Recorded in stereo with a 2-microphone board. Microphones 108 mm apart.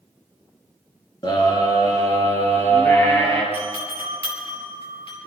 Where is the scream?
40° left (ahead or behind), 3 m; by 3.4 s 20° left (ahead or behind), 4 m.